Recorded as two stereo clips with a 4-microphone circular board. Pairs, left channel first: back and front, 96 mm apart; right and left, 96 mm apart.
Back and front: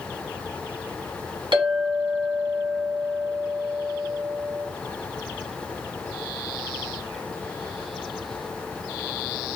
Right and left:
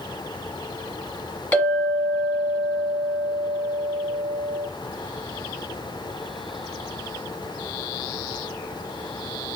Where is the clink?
20° right, 1.5 m.